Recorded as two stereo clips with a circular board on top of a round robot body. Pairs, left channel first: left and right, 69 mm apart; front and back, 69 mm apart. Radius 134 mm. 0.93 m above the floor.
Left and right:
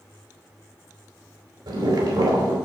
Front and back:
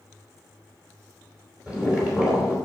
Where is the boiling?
105° right, 3.5 m.